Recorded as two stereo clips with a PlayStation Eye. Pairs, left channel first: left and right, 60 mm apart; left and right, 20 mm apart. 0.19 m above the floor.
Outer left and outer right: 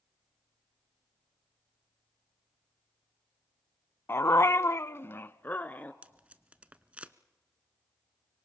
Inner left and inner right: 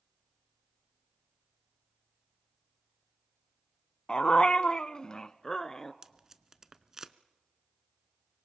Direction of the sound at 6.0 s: 20° right (ahead or behind).